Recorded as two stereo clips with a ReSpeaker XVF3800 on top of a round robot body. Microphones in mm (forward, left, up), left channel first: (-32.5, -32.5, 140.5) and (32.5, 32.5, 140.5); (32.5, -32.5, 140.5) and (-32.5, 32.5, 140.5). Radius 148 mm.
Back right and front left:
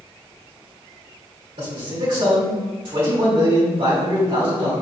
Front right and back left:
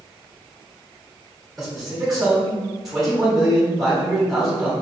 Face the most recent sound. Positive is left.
turn(degrees=45)